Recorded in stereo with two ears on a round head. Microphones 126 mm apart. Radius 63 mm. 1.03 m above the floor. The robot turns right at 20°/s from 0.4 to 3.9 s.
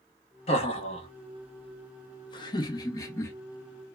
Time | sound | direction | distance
0.5 | laughter | 45° left (ahead or behind) | 0.8 m